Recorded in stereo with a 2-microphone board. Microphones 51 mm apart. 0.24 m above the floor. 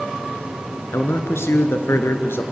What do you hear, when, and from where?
0.9 s a man speaking: 70° left (ahead or behind), 2.5 m; by 2.4 s 60° left (ahead or behind), 3 m